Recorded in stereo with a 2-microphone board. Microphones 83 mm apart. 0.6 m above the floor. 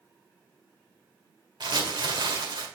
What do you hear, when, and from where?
1.6 s crumpling: 65° right (ahead or behind), 1.9 m